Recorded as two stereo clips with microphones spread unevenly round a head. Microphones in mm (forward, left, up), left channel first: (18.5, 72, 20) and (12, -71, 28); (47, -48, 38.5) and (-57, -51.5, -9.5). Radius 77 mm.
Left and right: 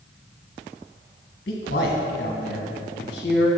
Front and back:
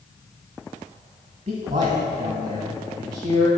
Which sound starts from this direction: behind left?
A man speaking, at 1.5 s.